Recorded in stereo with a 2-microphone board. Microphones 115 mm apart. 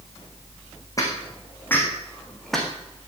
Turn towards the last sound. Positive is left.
turn(degrees=0)  # may be behind; listen again after turning